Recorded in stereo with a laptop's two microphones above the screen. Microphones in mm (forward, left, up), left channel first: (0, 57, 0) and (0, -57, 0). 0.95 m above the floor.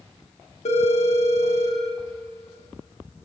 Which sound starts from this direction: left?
A phone ringing, at 0.7 s.